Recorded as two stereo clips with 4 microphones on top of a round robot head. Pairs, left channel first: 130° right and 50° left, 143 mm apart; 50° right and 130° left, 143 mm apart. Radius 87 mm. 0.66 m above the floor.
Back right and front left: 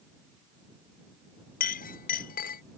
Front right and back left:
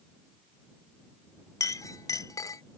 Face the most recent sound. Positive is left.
turn(degrees=-115)